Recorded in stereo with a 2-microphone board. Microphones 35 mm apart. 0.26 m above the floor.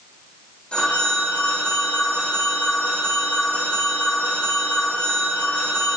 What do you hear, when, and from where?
0.7 s a phone ringing: 35° left (ahead or behind), 7.5 m